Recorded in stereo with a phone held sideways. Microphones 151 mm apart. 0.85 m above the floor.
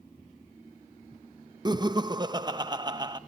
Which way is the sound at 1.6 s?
30° right (ahead or behind).